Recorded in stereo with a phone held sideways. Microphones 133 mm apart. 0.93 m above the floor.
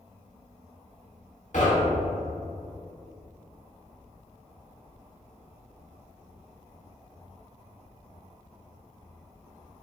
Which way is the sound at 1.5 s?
65° left (ahead or behind).